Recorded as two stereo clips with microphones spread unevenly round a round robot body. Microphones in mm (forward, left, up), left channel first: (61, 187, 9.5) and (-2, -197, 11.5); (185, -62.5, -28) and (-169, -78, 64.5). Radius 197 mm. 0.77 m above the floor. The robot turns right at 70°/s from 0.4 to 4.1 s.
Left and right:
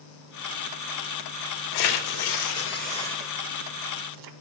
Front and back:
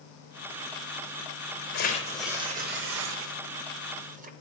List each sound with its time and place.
1.7 s tearing paper: 70° left, 0.6 m; by 4.3 s 125° right, 0.6 m